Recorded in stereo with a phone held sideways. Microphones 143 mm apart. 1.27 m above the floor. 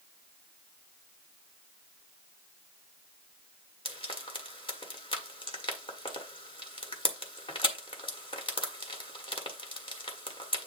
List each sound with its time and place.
3.9 s frying: 40° left (ahead or behind), 1.6 m